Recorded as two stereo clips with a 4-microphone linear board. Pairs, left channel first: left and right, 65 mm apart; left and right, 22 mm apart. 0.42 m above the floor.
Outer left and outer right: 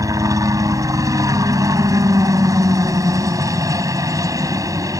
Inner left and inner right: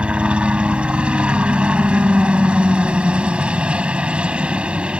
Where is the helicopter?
60° right (ahead or behind).